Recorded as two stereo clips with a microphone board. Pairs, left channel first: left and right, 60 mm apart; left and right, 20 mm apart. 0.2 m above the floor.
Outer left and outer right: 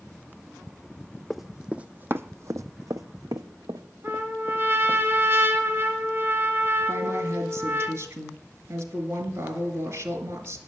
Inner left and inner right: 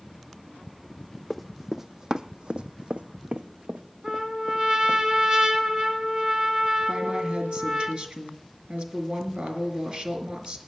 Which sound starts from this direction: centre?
Running footsteps, at 1.3 s.